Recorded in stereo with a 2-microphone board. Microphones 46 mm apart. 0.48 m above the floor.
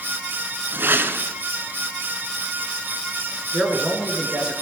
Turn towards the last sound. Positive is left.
turn(degrees=-20)  # may be behind; listen again after turning